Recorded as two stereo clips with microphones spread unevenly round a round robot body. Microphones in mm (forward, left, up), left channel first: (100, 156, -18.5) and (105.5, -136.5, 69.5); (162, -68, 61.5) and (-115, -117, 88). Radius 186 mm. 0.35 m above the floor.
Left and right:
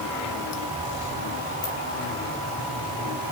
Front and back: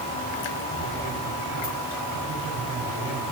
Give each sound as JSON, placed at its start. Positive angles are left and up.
{"t": 1.6, "sound": "a ringtone", "azimuth_deg": 70, "distance_m": 6.0}